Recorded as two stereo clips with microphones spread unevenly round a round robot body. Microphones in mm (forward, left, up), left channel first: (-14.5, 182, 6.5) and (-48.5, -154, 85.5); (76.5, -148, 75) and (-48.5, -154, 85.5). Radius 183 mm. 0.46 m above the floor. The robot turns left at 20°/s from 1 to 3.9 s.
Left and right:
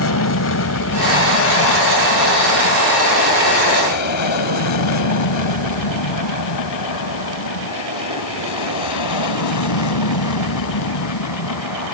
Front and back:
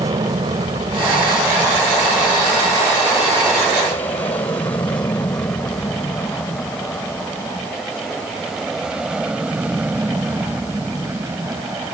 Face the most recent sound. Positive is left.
turn(degrees=105)